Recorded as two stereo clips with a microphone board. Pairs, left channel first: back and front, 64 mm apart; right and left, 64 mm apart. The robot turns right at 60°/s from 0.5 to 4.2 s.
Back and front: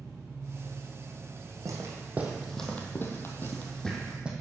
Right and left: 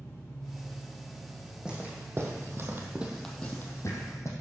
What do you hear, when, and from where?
0.0 s an engine running: 40° right, 3.5 m; by 4.4 s 175° right, 3.5 m
1.6 s footsteps: 15° left, 2.5 m; by 4.3 s 70° right, 2 m